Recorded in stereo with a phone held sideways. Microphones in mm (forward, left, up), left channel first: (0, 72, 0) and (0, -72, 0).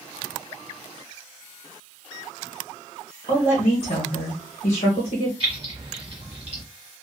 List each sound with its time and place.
3.3 s a woman speaking: 70° left (ahead or behind), 1.1 m
5.4 s keys jangling: 40° right (ahead or behind), 1.2 m